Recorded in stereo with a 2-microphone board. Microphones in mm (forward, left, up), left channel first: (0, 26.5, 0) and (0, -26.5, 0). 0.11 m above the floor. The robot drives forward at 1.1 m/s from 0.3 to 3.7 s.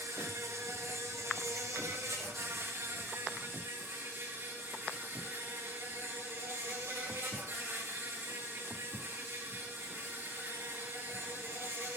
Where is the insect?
75° right (ahead or behind), 4 m; by 12.0 s 50° right (ahead or behind), 5 m.